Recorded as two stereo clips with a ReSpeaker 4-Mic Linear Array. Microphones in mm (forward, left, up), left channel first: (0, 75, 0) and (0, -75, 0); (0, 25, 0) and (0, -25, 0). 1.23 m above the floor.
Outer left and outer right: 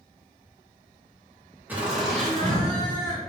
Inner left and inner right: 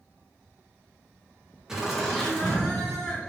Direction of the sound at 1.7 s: 10° right (ahead or behind).